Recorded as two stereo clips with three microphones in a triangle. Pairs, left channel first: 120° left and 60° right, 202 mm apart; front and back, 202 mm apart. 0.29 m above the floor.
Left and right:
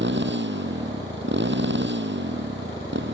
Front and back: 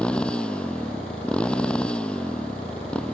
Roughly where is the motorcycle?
Right.